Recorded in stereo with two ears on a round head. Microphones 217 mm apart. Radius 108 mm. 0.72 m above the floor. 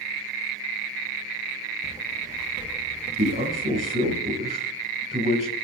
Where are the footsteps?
15° right (ahead or behind), 3.5 m; by 4.2 s 30° right (ahead or behind), 4 m.